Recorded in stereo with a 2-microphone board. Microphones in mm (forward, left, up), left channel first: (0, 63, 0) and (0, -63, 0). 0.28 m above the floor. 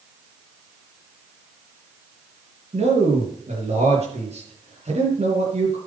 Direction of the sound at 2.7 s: 60° right (ahead or behind).